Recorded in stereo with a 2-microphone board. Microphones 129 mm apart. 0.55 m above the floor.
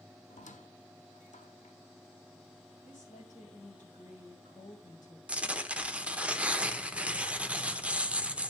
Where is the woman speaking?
75° left (ahead or behind), 3 m.